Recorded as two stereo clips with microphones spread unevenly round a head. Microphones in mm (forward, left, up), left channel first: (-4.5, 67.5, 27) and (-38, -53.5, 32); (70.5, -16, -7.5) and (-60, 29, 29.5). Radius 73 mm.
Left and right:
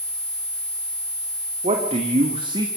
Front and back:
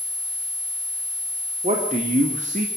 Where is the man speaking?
145° right, 3.5 m; by 2.7 s 160° right, 2 m.